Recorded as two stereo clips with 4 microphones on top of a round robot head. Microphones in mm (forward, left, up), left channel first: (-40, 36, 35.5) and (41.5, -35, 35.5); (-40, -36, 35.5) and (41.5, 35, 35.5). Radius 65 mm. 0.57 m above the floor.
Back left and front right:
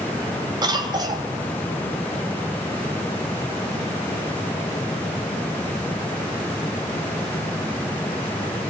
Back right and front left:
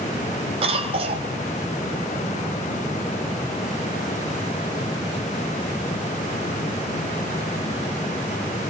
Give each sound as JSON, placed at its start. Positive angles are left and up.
{"t": 0.6, "sound": "a cough", "azimuth_deg": 10, "distance_m": 3.0}